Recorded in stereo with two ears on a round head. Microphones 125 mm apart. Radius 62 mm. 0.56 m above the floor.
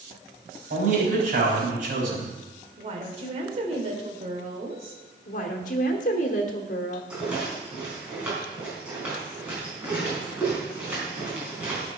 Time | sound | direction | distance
0.7 | a man speaking | 65° right (ahead or behind) | 4 m
2.8 | a woman speaking | 45° right (ahead or behind) | 2 m
5.3 | a woman speaking | 60° left (ahead or behind) | 1.3 m
7.1 | a rattle | 10° right (ahead or behind) | 4.5 m